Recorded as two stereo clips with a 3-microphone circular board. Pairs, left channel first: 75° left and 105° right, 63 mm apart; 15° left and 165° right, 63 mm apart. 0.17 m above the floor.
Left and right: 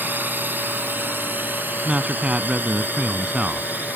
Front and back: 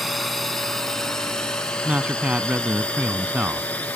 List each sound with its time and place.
0.0 s a drone: 75° right; by 4.0 s 50° right
1.9 s a man speaking: 145° right